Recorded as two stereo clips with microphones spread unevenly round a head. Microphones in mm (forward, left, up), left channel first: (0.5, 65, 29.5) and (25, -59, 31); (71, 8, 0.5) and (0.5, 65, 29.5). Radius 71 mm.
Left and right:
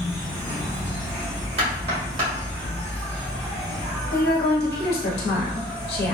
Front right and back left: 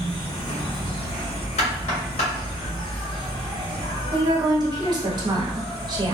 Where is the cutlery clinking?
No cutlery clinking in this recording.